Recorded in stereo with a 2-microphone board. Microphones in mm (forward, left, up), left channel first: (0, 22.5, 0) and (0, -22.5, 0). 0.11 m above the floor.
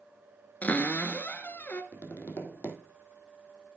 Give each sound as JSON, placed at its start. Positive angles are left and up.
{"t": 0.6, "sound": "a cupboard door", "side_deg": 40, "distance_m": 1.3}
{"t": 1.9, "sound": "tapping", "side_deg": 60, "distance_m": 2.0}